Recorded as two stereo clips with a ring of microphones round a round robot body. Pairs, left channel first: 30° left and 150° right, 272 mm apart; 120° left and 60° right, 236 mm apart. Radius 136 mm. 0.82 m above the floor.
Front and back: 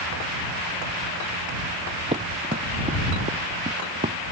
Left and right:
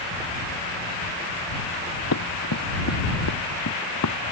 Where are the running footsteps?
140° left; by 4.2 s 145° left.